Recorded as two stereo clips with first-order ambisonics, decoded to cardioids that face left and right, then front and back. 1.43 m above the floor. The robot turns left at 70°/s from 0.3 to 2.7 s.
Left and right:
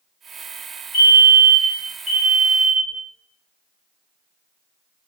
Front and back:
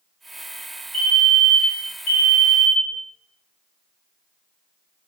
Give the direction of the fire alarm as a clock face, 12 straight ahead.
9 o'clock.